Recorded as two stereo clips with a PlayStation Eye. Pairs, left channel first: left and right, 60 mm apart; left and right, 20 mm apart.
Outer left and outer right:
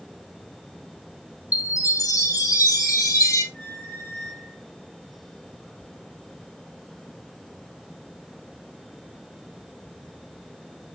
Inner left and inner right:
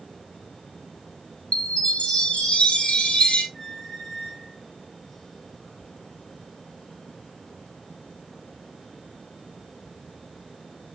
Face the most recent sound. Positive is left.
turn(degrees=30)  # may be behind; listen again after turning